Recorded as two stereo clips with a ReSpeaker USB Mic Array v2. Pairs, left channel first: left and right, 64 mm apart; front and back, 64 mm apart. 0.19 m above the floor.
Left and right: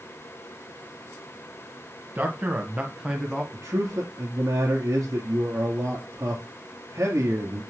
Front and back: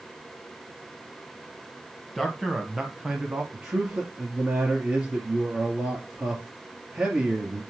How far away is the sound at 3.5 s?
About 2 m.